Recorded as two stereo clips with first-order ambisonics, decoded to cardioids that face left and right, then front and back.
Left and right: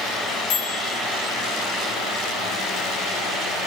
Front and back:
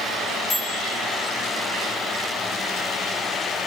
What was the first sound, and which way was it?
A microwave, 65° left.